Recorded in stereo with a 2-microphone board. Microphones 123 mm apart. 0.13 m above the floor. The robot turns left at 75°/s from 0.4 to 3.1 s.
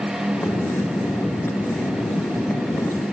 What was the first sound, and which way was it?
Only background noise.